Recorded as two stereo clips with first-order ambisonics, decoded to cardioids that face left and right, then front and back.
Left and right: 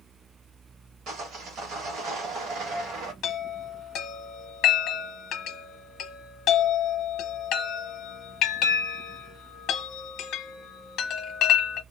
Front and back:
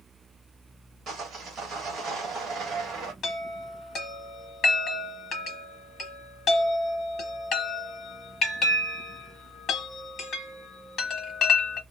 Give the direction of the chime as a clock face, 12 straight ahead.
10 o'clock.